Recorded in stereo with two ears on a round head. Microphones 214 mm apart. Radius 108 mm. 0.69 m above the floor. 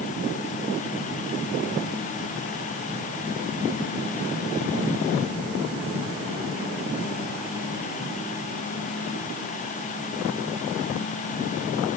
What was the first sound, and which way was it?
Only background noise.